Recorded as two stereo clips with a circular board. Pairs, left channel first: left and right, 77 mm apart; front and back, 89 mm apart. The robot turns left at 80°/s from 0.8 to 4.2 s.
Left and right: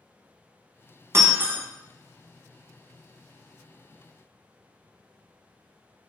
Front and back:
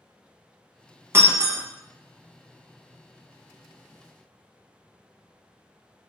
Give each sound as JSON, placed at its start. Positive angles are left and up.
{"t": 1.1, "sound": "breaking glass", "azimuth_deg": -125, "distance_m": 1.0}